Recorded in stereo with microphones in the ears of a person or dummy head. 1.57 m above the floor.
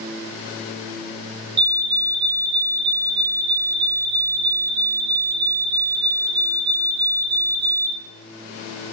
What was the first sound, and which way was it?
A fire alarm, 25° right (ahead or behind).